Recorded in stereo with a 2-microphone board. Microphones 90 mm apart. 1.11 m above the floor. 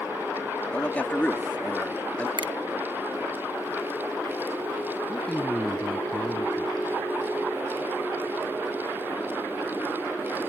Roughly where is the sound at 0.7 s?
Centre.